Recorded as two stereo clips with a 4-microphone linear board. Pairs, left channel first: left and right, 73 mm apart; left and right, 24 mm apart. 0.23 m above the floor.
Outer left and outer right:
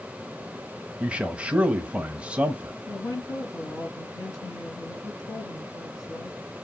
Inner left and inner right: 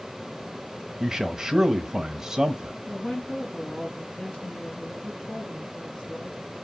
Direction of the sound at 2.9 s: 55° left (ahead or behind).